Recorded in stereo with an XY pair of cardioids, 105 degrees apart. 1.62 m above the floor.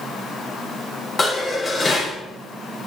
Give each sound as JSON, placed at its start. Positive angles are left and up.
{"t": 1.2, "sound": "dishes clattering", "azimuth_deg": 30, "distance_m": 3.5}